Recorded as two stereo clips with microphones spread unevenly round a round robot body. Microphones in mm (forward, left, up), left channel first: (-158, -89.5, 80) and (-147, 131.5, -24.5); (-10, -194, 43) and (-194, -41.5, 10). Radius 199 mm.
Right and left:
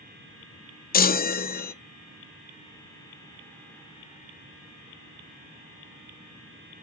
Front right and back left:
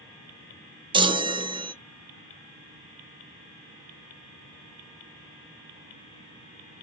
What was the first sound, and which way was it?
A chime, 165° right.